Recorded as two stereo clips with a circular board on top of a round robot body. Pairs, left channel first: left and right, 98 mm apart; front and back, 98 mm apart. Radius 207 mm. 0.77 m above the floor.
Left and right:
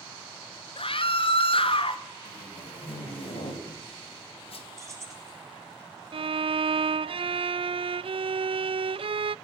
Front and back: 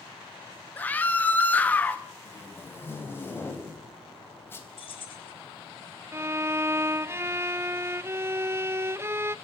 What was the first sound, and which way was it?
A scream, 75° left.